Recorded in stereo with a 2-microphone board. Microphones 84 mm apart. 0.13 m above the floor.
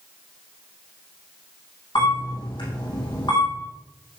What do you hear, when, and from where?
1.9 s a camera shutter: 75° left (ahead or behind), 5.5 m